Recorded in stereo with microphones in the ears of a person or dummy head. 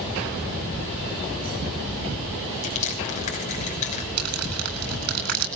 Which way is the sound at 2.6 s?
45° left (ahead or behind).